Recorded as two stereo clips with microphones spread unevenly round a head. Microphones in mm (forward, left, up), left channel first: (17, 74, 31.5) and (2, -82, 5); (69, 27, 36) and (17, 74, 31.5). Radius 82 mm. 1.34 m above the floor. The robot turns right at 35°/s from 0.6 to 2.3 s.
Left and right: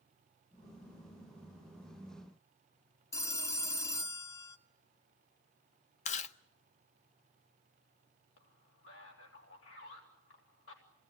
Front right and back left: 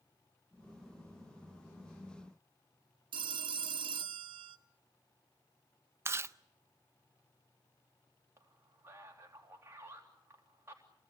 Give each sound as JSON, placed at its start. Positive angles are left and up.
{"t": 3.1, "sound": "a phone ringing", "azimuth_deg": 155, "distance_m": 0.8}
{"t": 6.0, "sound": "chewing", "azimuth_deg": 90, "distance_m": 0.6}
{"t": 8.4, "sound": "a man speaking", "azimuth_deg": 85, "distance_m": 3.0}